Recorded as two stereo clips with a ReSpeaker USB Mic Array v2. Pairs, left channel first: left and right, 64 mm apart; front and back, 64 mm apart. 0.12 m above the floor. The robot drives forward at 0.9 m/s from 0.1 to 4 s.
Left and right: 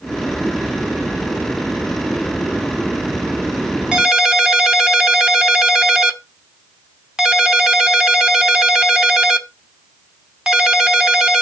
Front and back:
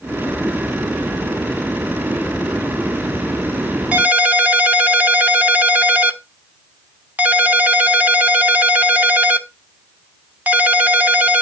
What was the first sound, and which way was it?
A ringtone, 155° right.